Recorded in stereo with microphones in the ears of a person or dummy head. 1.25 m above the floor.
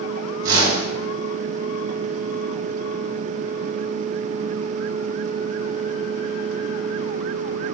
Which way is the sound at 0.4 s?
75° right (ahead or behind).